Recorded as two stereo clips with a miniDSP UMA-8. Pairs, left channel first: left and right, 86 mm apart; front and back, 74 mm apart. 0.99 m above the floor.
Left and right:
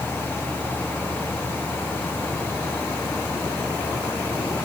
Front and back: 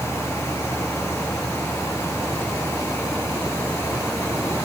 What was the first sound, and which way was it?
Only background noise.